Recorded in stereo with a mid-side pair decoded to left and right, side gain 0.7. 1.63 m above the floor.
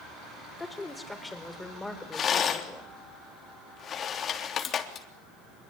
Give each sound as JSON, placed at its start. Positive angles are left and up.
{"t": 0.6, "sound": "a woman speaking", "azimuth_deg": 10, "distance_m": 5.5}
{"t": 2.1, "sound": "a rattle", "azimuth_deg": 40, "distance_m": 3.5}